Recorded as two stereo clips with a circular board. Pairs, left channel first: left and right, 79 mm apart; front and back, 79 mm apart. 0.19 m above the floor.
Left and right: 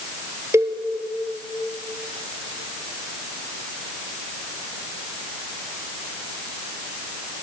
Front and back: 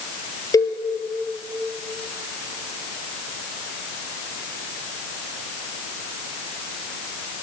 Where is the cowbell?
40° right, 1.4 m.